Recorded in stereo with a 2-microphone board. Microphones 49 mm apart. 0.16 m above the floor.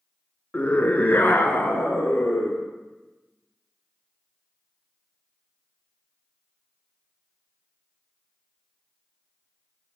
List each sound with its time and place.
0.5 s a scream: 30° left (ahead or behind), 1.2 m; by 2.6 s 45° left (ahead or behind), 2.5 m